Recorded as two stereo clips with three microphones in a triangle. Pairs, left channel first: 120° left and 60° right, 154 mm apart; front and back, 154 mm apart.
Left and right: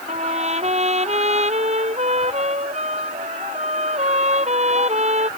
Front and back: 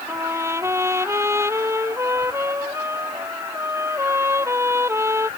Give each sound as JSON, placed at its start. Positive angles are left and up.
{"t": 0.1, "sound": "a trumpet", "azimuth_deg": -105}